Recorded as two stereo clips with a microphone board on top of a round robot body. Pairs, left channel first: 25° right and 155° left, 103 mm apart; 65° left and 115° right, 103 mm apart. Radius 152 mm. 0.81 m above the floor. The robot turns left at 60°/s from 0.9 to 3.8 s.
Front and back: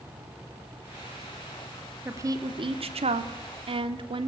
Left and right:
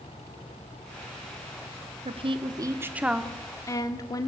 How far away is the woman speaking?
About 1.9 m.